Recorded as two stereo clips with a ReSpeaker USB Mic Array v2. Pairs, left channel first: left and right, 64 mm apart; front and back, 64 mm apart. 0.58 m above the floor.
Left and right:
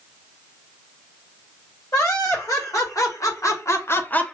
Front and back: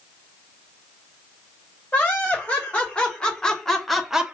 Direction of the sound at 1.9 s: 70° left.